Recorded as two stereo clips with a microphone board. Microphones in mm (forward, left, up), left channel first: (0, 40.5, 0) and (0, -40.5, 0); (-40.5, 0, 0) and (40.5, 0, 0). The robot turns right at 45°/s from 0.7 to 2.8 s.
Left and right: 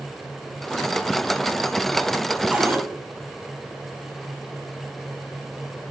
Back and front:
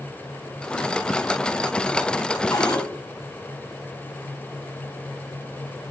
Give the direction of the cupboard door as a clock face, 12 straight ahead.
5 o'clock.